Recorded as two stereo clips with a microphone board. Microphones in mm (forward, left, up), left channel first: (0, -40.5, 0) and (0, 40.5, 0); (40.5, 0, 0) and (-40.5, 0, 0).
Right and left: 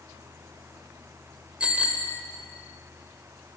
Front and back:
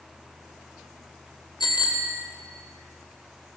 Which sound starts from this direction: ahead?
A bicycle bell, at 1.6 s.